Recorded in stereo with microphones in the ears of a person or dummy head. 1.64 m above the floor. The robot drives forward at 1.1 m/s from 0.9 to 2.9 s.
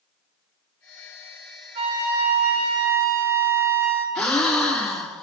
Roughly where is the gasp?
Centre.